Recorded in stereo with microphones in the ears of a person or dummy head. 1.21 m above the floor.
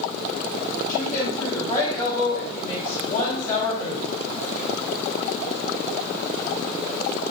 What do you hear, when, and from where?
0.9 s a woman speaking: 10° left (ahead or behind), 4.5 m